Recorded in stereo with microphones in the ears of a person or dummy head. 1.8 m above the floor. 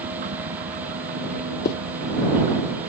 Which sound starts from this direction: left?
A zipper, at 1.6 s.